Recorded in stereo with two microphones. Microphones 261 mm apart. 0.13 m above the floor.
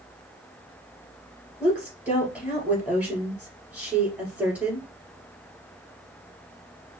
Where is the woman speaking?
5° right (ahead or behind), 2.5 m.